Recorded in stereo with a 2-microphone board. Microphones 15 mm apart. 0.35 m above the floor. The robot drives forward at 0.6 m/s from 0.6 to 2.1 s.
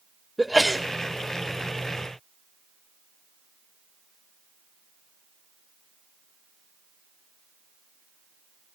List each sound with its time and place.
0.4 s a sneeze: 5° left (ahead or behind), 1.1 m